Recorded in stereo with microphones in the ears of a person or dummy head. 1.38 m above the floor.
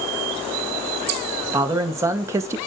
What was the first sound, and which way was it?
A man speaking, 10° right (ahead or behind).